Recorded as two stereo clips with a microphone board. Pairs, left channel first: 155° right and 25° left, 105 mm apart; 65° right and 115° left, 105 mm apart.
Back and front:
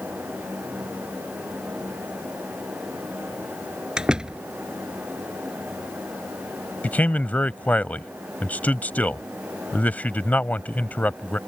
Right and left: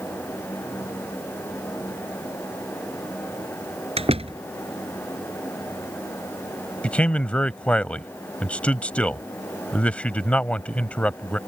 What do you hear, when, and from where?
4.0 s a door slam: 105° left
6.8 s a man speaking: 120° right